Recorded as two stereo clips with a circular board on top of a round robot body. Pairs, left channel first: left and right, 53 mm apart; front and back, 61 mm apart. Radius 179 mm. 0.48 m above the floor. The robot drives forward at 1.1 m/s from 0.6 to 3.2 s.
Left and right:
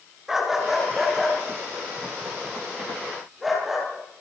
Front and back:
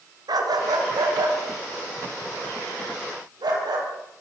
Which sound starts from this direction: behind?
A dog barking, at 0.3 s.